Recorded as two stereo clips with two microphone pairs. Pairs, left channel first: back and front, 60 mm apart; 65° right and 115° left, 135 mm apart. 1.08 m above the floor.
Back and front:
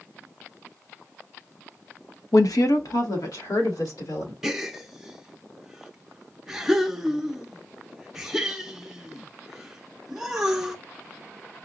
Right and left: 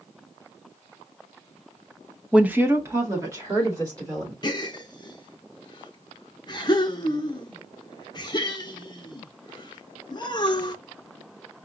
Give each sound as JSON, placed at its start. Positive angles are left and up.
{"t": 2.3, "sound": "a woman speaking", "azimuth_deg": -165, "distance_m": 0.6}
{"t": 4.4, "sound": "a gasp", "azimuth_deg": -80, "distance_m": 0.8}